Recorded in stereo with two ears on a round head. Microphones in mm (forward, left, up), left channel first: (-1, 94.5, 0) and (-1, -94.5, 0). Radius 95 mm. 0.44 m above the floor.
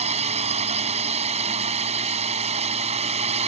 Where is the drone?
30° right (ahead or behind).